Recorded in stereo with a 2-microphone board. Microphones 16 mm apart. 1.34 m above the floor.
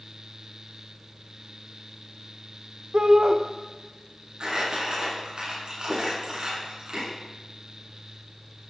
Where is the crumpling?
55° right (ahead or behind), 8.5 m.